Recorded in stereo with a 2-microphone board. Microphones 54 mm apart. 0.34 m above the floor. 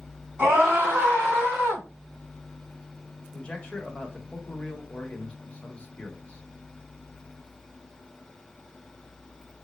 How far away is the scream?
About 3 m.